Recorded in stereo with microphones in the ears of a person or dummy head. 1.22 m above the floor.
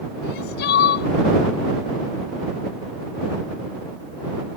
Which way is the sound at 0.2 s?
60° left (ahead or behind).